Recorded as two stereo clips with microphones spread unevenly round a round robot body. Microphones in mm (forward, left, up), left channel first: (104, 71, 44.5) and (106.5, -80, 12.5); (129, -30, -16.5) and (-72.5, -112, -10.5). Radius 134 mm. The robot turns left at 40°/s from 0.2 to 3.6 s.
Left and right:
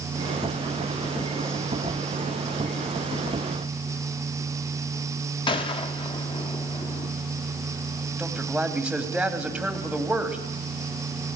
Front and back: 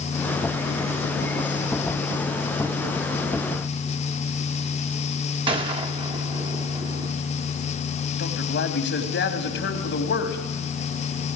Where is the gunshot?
145° left, 1.0 m.